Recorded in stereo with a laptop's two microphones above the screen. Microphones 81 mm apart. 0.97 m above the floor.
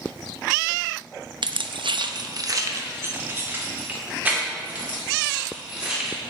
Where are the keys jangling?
70° right (ahead or behind), 0.6 m; by 6.2 s 10° right (ahead or behind), 3 m.